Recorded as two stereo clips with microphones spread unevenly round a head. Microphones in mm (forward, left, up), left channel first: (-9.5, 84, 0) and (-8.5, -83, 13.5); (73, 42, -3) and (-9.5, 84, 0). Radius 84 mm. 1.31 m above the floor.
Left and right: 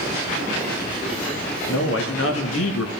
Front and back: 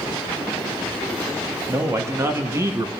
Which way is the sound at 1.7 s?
95° left.